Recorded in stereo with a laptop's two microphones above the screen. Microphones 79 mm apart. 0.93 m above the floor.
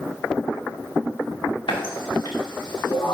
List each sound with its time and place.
1.7 s a running tap: 85° left, 1.7 m